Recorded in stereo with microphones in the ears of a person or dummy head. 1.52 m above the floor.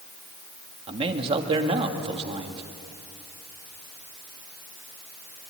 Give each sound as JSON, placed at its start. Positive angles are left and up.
{"t": 0.9, "sound": "a man speaking", "side_deg": -35, "distance_m": 2.0}